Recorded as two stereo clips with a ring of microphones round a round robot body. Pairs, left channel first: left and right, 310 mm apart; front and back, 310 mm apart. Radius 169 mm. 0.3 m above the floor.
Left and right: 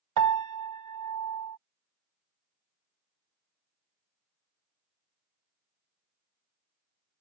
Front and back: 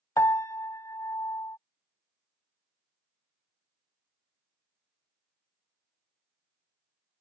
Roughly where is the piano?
Right.